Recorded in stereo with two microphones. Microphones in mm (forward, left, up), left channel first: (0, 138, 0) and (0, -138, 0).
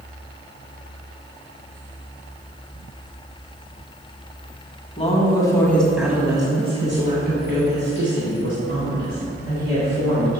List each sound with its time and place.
5.0 s a woman speaking: 25° left (ahead or behind), 1.6 m; by 10.4 s 60° right (ahead or behind), 3.5 m